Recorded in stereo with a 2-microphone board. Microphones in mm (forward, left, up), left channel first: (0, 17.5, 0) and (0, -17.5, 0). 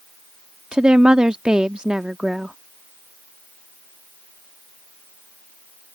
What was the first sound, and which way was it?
A woman speaking, 25° right (ahead or behind).